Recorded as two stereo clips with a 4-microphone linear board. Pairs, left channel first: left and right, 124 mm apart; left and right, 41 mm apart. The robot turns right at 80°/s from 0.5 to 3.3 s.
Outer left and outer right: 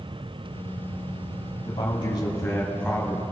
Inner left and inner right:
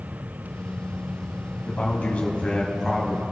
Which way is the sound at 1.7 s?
75° left.